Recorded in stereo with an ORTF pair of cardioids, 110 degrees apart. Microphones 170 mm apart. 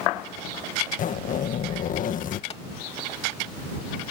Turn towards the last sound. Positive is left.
turn(degrees=35)